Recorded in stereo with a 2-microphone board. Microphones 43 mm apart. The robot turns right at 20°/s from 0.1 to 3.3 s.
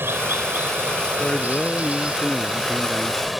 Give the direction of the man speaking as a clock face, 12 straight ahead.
7 o'clock.